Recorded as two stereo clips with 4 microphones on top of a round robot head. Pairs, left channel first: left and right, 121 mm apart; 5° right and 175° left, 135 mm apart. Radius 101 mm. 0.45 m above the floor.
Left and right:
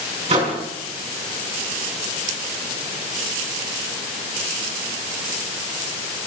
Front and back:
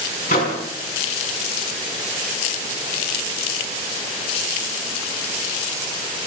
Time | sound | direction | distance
0.3 | a microwave | 40° right | 5 m